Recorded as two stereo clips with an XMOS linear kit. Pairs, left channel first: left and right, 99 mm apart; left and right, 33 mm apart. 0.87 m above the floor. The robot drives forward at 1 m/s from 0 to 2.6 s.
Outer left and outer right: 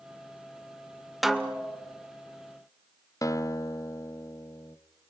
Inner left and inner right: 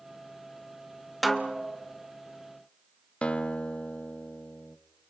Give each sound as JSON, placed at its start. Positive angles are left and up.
{"t": 1.2, "sound": "a snare drum", "side_deg": 0, "distance_m": 1.2}
{"t": 3.2, "sound": "a guitar", "side_deg": 35, "distance_m": 0.6}